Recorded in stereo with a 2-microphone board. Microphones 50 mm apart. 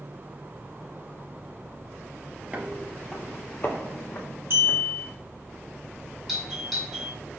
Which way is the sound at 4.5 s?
55° right (ahead or behind).